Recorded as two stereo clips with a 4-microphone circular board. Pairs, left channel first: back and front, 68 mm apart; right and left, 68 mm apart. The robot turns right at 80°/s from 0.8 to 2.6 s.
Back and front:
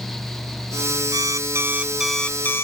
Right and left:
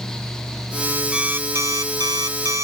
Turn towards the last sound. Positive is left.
turn(degrees=130)